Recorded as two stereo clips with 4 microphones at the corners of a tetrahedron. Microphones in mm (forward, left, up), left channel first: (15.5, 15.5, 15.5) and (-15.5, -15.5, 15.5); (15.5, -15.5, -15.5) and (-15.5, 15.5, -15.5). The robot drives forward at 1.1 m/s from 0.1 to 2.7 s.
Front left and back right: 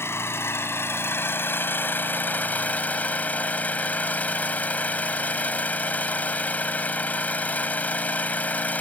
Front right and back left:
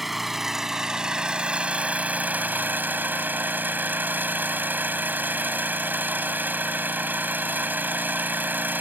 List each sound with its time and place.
0.0 s an engine running: 50° left; by 8.8 s 95° left